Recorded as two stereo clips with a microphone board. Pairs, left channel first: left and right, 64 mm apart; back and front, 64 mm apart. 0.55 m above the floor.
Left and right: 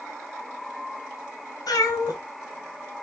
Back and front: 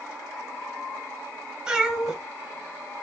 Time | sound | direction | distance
1.7 | a cat meowing | 75° left | 3.5 m